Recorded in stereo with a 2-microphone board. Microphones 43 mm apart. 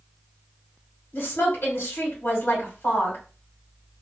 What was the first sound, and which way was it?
A woman speaking, 60° left (ahead or behind).